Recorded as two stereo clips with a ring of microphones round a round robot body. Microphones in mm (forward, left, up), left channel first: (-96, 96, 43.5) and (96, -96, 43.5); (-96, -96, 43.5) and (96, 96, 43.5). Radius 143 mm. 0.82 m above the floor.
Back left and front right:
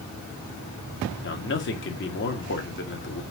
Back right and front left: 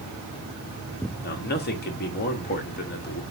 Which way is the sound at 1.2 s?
175° left.